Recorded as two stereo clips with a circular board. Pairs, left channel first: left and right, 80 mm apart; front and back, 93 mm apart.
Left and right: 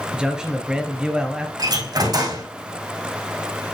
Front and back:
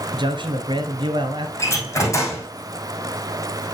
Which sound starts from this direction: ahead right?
A door slam, at 1.6 s.